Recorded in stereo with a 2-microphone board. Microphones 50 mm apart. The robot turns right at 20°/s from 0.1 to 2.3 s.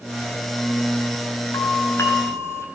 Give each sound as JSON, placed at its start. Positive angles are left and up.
{"t": 1.5, "sound": "a doorbell", "side_deg": 70, "distance_m": 4.5}